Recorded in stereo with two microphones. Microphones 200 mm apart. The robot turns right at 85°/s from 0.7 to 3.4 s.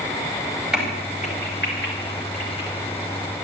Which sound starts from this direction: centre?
A crack, at 0.7 s.